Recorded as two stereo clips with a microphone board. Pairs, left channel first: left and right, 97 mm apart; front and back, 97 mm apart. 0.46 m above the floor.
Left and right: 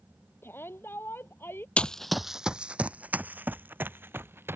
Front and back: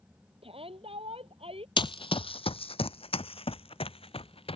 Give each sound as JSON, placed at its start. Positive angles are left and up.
{"t": 0.4, "sound": "a shout", "azimuth_deg": 160}
{"t": 1.8, "sound": "running footsteps", "azimuth_deg": 15}